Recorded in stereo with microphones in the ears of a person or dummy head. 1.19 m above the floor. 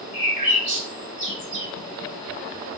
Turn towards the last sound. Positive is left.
turn(degrees=-40)  # may be behind; listen again after turning